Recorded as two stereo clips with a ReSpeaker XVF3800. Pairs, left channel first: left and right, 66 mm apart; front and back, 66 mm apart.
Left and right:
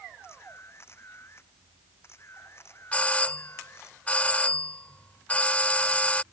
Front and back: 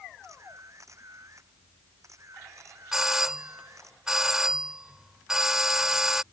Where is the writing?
No writing in this recording.